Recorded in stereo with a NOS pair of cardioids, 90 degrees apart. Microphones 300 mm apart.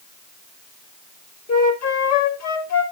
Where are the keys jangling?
No keys jangling in this recording.